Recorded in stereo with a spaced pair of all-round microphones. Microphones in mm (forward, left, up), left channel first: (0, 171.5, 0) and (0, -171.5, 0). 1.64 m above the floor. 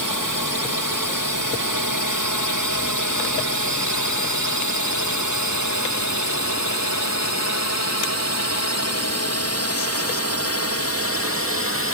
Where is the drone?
65° left (ahead or behind); by 11.9 s 40° left (ahead or behind).